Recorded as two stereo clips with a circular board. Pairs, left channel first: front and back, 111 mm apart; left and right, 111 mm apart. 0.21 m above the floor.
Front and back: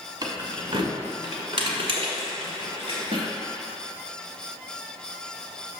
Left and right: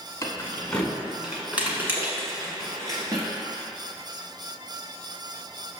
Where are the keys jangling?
145° left, 1.1 m; by 3.3 s 145° right, 2 m.